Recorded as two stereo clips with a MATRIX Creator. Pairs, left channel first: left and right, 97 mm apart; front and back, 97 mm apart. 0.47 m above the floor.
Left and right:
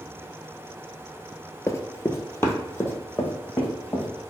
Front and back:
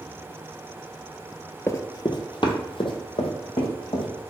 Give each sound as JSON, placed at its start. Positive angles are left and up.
{"t": 1.7, "sound": "running footsteps", "azimuth_deg": 50, "distance_m": 0.5}